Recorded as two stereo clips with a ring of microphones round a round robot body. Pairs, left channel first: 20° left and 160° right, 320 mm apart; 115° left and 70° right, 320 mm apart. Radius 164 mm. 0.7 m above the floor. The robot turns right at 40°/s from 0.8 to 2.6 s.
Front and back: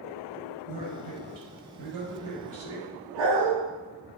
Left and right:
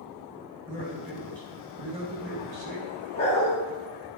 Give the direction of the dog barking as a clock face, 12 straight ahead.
6 o'clock.